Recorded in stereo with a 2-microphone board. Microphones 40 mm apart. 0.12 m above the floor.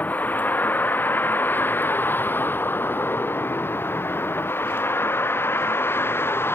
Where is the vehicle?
45° left (ahead or behind); by 6.5 s 65° left (ahead or behind).